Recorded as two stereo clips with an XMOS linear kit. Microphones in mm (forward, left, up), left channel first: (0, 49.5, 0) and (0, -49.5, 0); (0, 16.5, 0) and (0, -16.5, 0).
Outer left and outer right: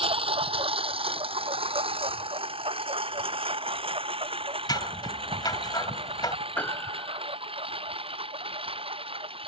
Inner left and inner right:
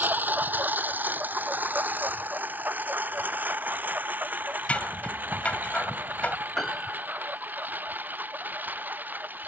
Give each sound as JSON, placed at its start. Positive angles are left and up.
{"t": 0.0, "sound": "a lawn mower", "side_deg": -70}
{"t": 4.7, "sound": "scissors", "side_deg": 45}
{"t": 6.6, "sound": "a piano", "side_deg": 15}